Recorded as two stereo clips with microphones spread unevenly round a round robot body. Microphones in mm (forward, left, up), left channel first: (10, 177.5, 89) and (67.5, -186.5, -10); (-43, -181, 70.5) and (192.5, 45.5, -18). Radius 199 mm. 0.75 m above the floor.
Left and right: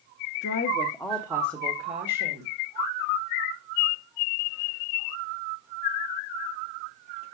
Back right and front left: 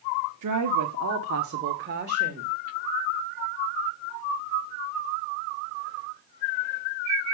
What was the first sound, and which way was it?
A woman speaking, 35° left.